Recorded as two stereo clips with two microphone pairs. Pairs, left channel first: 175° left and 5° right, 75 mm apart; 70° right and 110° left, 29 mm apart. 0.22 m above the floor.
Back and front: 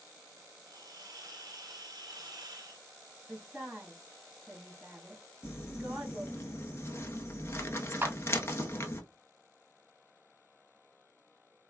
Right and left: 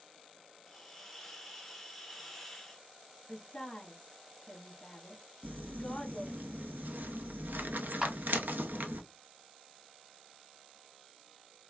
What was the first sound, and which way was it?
A hiss, 15° left.